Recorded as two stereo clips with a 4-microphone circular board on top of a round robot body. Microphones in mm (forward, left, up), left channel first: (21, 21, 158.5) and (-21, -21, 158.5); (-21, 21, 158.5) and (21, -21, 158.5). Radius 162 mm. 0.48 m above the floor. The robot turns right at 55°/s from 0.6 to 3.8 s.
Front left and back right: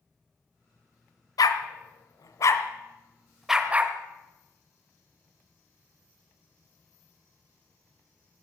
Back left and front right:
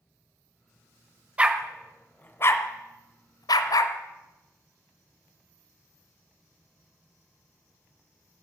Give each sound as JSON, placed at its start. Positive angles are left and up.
{"t": 1.4, "sound": "a dog barking", "azimuth_deg": 25, "distance_m": 0.9}